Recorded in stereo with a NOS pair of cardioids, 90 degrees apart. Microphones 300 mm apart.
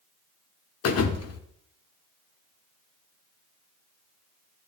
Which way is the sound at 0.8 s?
55° left.